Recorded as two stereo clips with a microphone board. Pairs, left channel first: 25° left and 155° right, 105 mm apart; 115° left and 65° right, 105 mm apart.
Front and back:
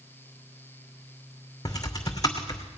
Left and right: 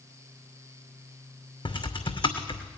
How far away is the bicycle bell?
I don't hear a bicycle bell.